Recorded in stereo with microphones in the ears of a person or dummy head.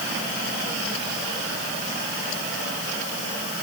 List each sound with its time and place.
Only background noise.